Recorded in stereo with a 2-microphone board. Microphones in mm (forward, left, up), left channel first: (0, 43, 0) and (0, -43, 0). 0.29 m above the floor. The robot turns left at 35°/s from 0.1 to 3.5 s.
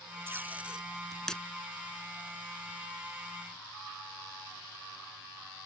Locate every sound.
0.3 s tape being pulled: 30° right (ahead or behind); by 1.4 s 10° left (ahead or behind)